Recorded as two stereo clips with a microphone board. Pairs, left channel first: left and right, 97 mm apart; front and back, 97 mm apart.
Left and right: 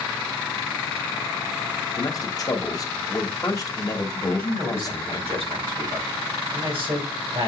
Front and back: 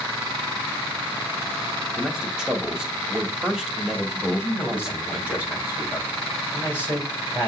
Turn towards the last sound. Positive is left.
turn(degrees=-70)